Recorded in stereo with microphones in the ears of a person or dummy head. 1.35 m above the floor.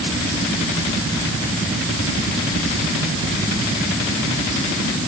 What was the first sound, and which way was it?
Only background noise.